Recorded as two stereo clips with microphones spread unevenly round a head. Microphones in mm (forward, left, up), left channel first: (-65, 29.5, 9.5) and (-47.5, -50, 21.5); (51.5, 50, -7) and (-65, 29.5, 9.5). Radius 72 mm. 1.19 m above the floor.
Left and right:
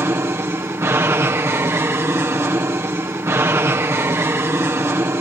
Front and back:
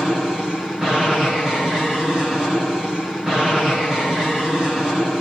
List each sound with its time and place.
0.0 s an aircraft: 75° right